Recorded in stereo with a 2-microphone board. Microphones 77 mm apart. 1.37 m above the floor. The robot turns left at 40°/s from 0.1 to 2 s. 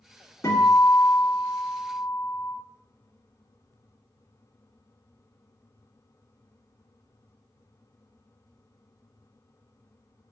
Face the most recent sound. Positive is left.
turn(degrees=75)